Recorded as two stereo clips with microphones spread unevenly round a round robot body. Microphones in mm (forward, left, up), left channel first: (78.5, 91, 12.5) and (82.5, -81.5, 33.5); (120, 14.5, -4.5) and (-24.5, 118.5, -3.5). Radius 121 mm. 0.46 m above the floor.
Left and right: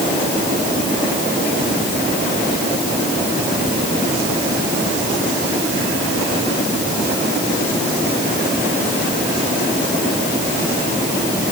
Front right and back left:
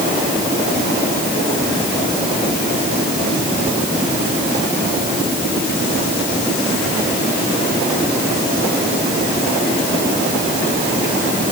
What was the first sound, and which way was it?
Only background noise.